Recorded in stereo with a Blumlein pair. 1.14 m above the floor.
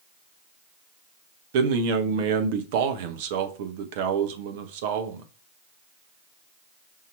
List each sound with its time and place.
1.5 s a man speaking: 50° right, 0.9 m